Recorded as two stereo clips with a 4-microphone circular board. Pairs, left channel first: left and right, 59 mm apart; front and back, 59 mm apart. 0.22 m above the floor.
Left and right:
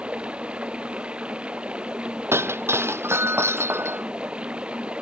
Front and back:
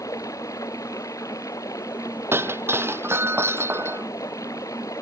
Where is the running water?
20° right.